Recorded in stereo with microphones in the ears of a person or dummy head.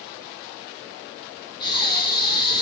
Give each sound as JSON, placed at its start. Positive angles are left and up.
{"t": 1.6, "sound": "breathing", "side_deg": 30, "distance_m": 2.5}